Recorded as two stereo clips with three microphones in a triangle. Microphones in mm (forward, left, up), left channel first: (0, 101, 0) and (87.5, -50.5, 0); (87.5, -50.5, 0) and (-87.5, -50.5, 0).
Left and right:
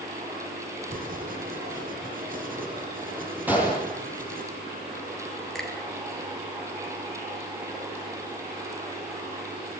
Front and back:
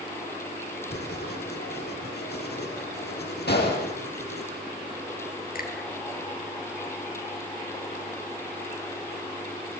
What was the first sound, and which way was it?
Writing, 20° right.